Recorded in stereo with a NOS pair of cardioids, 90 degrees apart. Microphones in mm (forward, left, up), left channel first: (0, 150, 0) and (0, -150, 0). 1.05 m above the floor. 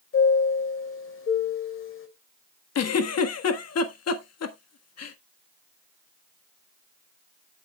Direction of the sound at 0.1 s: 45° left.